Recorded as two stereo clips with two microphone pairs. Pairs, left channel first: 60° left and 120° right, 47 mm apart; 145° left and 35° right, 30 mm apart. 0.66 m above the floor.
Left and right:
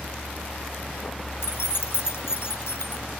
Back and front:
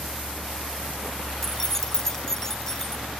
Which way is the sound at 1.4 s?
75° left.